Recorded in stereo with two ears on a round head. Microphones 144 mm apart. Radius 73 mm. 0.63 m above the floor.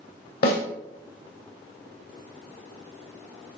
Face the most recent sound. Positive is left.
turn(degrees=60)  # may be behind; listen again after turning